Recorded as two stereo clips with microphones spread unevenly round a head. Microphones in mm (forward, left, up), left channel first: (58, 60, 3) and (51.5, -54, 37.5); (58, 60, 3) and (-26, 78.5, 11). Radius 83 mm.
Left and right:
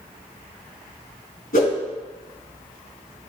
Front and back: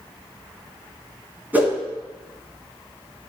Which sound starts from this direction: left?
A whoosh, at 1.5 s.